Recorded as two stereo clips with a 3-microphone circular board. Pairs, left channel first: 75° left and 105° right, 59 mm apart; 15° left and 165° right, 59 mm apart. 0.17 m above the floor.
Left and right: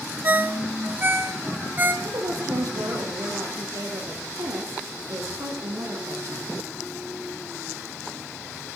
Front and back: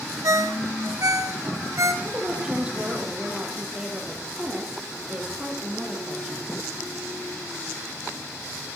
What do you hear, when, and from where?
0.2 s a ringtone: 155° right, 0.9 m
2.0 s a woman speaking: 95° right, 4.5 m